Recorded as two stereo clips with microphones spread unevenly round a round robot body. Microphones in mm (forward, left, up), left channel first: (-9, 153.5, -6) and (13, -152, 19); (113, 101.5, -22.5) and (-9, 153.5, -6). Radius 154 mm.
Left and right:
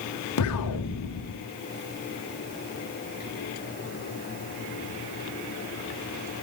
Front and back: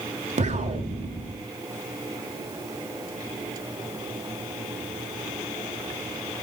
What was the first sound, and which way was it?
An explosion, 130° left.